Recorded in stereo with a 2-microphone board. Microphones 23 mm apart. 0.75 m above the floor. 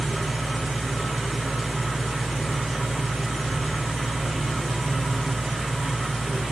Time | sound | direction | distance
0.0 | an engine running | 65° right (ahead or behind) | 1.2 m